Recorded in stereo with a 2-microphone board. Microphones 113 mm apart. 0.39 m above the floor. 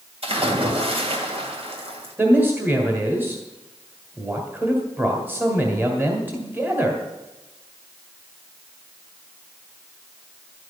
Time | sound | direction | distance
0.2 | a splash | 60° right (ahead or behind) | 2.5 m
2.2 | a man speaking | 20° right (ahead or behind) | 2.0 m